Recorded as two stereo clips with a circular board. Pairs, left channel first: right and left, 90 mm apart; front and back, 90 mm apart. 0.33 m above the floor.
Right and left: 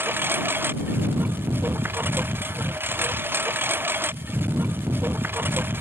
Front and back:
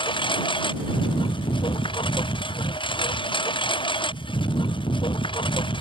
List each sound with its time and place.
0.0 s a lawn mower: 25° left